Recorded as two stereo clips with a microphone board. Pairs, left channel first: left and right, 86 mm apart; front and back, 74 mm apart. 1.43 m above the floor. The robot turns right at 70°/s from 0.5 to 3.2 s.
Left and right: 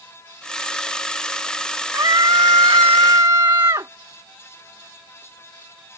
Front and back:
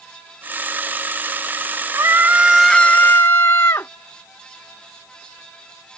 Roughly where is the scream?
Behind right.